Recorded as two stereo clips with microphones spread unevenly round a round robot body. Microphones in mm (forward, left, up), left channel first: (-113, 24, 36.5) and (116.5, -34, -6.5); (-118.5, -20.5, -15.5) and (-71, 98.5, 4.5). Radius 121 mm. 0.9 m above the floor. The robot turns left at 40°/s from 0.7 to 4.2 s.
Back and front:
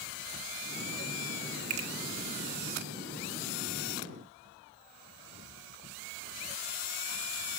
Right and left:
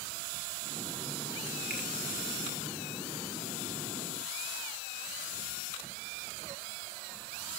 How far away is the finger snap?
About 1.7 m.